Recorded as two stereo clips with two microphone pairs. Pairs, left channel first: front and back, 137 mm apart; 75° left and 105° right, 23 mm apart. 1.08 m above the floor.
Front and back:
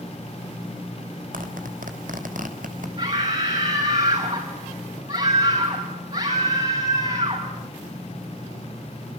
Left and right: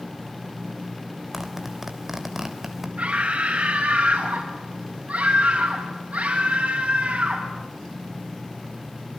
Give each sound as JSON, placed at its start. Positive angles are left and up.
{"t": 1.3, "sound": "a zipper", "azimuth_deg": 175, "distance_m": 3.5}
{"t": 3.0, "sound": "a scream", "azimuth_deg": -135, "distance_m": 6.0}